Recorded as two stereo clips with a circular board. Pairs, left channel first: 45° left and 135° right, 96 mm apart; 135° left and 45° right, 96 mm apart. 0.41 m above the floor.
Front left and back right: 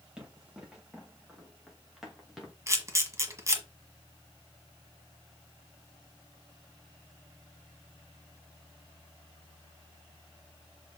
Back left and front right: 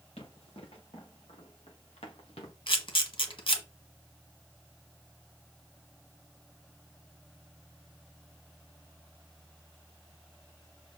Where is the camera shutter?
165° left, 1.4 m.